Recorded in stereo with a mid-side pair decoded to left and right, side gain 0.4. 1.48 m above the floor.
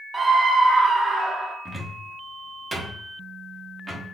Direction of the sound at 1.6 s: 30° right.